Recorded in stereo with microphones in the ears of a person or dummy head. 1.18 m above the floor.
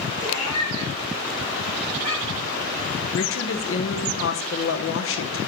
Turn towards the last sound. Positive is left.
turn(degrees=65)  # may be behind; listen again after turning